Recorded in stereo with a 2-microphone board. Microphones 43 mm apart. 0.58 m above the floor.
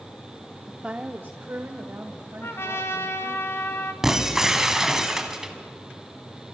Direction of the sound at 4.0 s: 10° right (ahead or behind).